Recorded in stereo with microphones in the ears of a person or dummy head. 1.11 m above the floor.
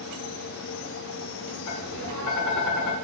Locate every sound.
1.7 s tapping: 65° left (ahead or behind), 1.1 m